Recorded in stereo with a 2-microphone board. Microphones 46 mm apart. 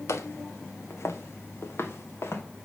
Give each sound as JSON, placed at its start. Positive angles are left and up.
{"t": 0.1, "sound": "footsteps", "side_deg": 80, "distance_m": 1.6}